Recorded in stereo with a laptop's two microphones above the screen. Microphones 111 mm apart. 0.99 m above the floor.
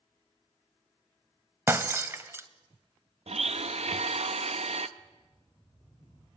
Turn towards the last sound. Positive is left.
turn(degrees=35)  # may be behind; listen again after turning